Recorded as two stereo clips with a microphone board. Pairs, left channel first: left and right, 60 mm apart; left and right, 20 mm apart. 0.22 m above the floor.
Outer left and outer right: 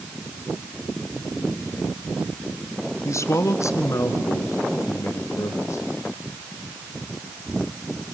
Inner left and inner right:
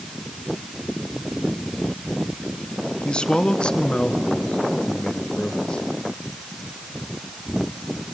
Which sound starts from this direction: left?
A man speaking, at 3.0 s.